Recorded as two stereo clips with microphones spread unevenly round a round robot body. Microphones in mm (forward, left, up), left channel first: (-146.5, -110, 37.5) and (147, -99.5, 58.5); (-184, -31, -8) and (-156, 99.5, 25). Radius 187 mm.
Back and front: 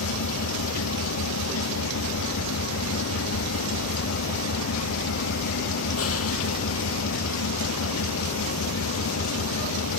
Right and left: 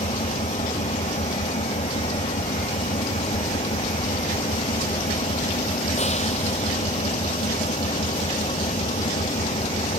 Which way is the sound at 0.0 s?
140° right.